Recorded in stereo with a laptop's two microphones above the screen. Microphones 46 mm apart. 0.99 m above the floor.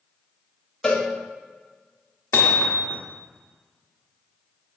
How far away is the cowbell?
About 1.5 m.